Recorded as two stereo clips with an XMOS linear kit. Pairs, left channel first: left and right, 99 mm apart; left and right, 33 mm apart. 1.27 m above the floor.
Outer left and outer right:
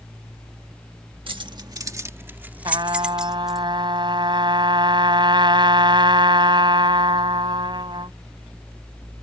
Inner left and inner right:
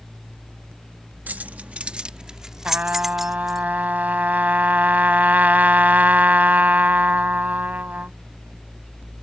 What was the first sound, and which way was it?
Keys jangling, 60° right (ahead or behind).